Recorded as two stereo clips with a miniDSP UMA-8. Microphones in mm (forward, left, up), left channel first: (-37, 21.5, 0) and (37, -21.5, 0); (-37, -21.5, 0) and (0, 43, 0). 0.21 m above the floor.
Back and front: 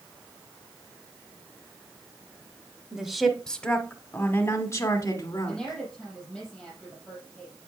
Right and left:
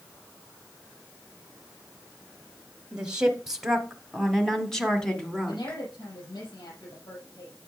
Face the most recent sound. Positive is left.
turn(degrees=-125)